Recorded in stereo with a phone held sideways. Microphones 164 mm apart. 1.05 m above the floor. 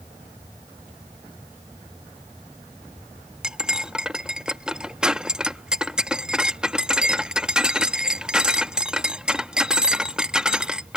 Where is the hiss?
No hiss in this recording.